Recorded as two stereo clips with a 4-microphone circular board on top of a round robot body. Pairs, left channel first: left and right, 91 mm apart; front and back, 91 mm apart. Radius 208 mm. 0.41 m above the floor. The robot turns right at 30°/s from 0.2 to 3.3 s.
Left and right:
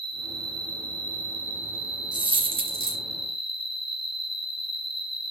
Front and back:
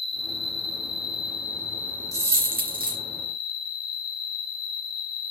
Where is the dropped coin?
125° right, 3 m; by 3.0 s 100° right, 3 m.